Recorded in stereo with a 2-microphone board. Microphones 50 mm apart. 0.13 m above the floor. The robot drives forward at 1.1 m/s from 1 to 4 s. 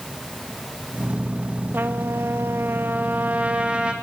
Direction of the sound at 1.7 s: 45° right (ahead or behind).